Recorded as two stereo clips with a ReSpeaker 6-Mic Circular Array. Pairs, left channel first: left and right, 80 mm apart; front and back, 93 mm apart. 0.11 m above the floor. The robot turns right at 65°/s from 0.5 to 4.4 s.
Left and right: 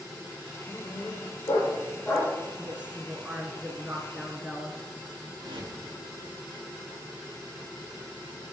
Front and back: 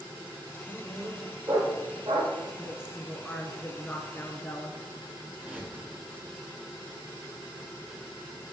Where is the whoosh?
100° right, 2.5 m.